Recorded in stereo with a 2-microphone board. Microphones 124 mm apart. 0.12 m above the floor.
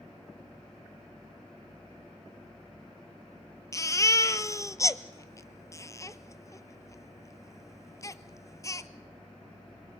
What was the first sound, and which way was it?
A baby crying, 25° left (ahead or behind).